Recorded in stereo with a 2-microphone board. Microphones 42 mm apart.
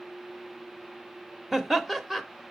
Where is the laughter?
5° right (ahead or behind), 0.9 m.